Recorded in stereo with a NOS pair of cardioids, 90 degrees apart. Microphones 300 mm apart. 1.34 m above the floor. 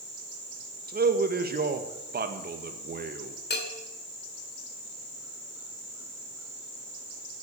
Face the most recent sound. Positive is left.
turn(degrees=35)